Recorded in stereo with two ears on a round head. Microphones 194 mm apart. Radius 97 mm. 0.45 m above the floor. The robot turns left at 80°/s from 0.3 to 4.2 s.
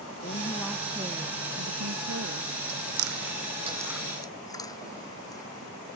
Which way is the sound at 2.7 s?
75° right (ahead or behind).